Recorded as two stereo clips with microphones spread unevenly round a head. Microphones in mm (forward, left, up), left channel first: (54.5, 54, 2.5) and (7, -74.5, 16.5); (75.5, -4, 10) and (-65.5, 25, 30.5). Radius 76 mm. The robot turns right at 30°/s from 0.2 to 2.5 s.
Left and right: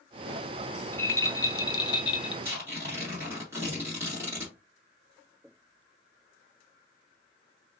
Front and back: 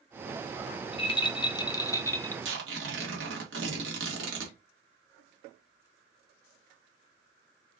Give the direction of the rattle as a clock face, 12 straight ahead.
12 o'clock.